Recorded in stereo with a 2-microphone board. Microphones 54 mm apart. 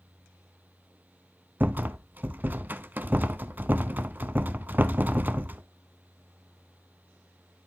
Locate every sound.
1.6 s a rattle: 35° right (ahead or behind), 0.6 m